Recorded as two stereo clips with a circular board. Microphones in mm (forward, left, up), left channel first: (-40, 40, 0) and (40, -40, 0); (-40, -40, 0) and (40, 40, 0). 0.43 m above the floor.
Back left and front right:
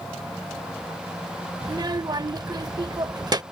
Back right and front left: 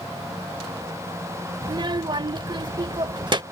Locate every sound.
1.6 s a child speaking: 5° left